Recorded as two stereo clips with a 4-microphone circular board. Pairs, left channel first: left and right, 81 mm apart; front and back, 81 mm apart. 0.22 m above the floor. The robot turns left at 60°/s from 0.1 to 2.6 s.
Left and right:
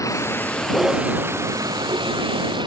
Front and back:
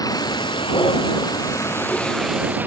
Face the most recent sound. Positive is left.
turn(degrees=-110)